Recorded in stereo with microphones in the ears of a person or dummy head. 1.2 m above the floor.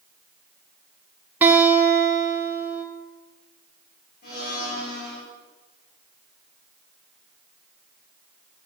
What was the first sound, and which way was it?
A guitar, 15° right (ahead or behind).